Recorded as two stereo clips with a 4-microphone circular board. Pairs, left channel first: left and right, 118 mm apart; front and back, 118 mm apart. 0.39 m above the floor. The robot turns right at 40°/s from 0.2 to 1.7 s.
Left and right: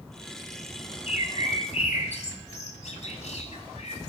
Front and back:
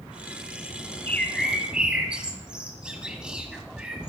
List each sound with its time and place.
1.1 s a bird: 75° left, 1.5 m; by 4.1 s 100° left, 1.5 m